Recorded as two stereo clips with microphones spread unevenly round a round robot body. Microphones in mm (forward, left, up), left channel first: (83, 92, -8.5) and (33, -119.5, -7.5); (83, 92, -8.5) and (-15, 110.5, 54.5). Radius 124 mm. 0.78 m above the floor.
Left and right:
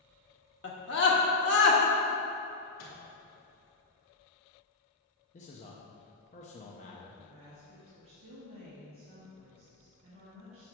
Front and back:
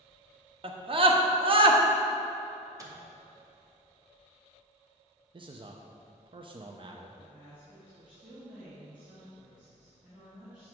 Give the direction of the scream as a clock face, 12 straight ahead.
8 o'clock.